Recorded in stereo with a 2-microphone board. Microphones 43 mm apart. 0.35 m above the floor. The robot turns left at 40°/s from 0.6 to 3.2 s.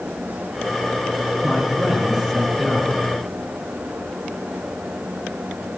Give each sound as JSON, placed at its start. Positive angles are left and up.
{"t": 1.4, "sound": "a man speaking", "azimuth_deg": -140, "distance_m": 6.5}